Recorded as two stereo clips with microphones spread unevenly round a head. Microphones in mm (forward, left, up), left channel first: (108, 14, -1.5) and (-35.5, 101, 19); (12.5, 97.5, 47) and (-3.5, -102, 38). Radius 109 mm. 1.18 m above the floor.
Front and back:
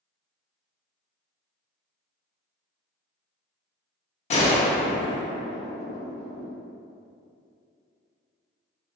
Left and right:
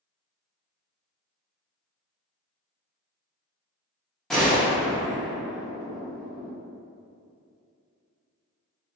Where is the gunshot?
Straight ahead, 0.5 m.